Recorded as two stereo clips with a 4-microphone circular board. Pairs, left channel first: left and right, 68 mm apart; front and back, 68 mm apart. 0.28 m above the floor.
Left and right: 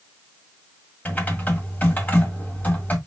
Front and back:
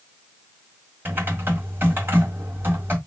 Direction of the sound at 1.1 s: 140° left.